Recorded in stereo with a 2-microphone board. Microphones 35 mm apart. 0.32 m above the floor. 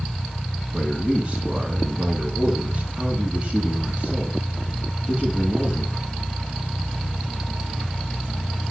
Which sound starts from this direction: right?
A man speaking, at 0.7 s.